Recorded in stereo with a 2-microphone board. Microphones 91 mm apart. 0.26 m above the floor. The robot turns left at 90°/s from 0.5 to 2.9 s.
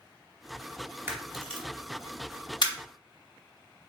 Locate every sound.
1.1 s a camera shutter: 25° right (ahead or behind), 0.9 m; by 2.7 s 50° left (ahead or behind), 0.9 m